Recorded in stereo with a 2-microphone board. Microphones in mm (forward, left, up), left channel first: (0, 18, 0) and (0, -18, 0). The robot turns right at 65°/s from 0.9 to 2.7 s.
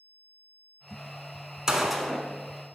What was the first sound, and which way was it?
A gunshot, 20° right.